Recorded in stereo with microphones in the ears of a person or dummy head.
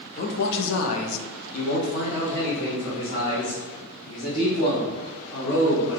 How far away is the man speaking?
About 0.8 m.